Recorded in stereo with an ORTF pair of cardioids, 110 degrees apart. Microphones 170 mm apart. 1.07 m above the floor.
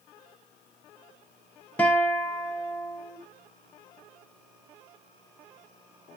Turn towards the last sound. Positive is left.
turn(degrees=10)